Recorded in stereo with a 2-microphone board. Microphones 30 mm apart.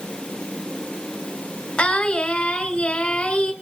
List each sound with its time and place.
1.8 s singing: 30° left (ahead or behind), 3.5 m